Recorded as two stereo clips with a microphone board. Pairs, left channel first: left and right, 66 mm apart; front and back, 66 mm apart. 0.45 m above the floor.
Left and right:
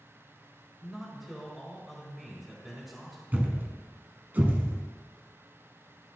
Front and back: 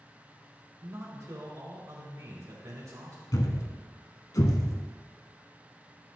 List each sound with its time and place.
0.8 s a man speaking: straight behind, 2 m
3.3 s a thud: 25° right, 0.9 m